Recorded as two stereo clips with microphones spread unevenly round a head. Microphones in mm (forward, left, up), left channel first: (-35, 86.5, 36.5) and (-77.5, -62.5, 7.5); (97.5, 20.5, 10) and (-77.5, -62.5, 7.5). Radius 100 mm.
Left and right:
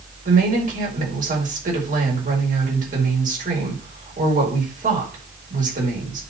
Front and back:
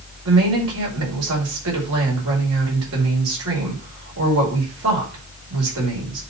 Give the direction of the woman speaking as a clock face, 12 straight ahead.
5 o'clock.